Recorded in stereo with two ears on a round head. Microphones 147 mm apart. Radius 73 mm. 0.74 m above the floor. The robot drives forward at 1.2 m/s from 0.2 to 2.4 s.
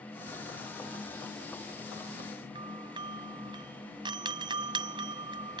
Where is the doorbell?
30° right (ahead or behind).